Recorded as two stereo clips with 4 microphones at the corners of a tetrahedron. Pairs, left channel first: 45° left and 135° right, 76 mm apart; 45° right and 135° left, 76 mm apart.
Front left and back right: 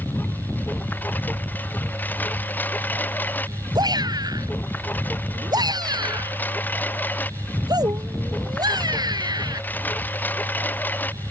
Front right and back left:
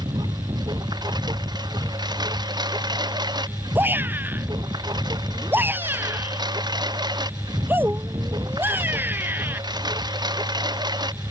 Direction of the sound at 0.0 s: 115° left.